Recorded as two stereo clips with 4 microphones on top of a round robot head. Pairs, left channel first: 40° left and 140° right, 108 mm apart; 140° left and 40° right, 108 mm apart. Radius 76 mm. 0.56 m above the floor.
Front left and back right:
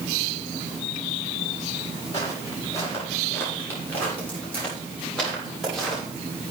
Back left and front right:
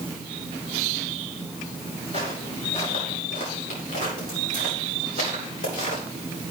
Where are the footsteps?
105° left, 7.5 m; by 6.0 s 130° left, 8.5 m.